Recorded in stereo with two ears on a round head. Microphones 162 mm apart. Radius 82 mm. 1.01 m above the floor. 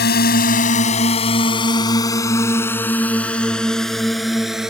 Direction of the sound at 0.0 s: 50° left (ahead or behind).